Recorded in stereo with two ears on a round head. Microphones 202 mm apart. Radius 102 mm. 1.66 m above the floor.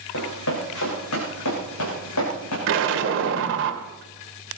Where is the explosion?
55° right (ahead or behind), 2 m.